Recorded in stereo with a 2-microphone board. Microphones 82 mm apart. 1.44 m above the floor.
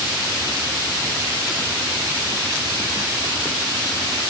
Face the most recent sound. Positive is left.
No sound to turn to.